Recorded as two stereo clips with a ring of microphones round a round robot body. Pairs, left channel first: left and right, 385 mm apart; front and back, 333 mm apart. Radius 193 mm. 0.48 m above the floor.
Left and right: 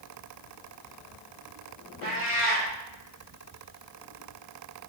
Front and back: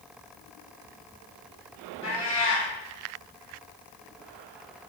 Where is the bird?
No bird in this recording.